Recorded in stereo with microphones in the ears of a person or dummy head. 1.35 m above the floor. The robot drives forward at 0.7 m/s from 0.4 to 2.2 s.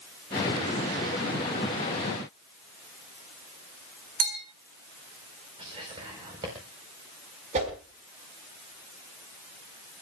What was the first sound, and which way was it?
A bell, 40° right (ahead or behind).